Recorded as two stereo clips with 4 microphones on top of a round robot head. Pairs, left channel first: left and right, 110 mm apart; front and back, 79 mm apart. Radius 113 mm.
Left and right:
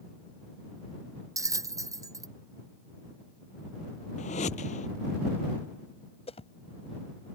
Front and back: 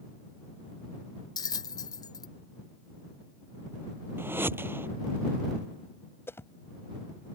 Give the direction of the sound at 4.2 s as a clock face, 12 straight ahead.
8 o'clock.